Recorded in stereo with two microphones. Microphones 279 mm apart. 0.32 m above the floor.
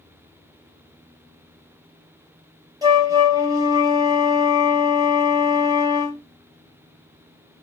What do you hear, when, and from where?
2.8 s a flute: 10° right (ahead or behind), 1.6 m